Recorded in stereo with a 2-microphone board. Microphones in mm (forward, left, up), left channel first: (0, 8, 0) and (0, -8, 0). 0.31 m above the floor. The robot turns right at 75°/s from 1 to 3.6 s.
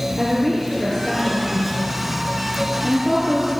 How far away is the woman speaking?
About 5.5 m.